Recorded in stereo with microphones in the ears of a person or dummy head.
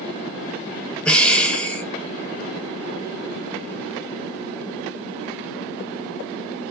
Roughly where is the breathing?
Centre.